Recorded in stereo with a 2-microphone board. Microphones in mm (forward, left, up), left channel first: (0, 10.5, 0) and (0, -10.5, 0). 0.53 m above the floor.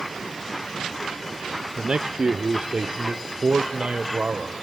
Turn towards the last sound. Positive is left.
turn(degrees=-55)  # may be behind; listen again after turning